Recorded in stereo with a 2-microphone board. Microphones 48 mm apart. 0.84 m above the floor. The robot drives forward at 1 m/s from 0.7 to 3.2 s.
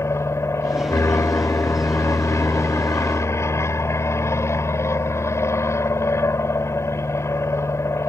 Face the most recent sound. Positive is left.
turn(degrees=70)  # may be behind; listen again after turning